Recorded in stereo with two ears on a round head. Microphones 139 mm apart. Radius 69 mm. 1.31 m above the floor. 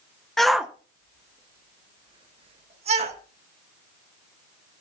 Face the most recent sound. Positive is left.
turn(degrees=-45)  # may be behind; listen again after turning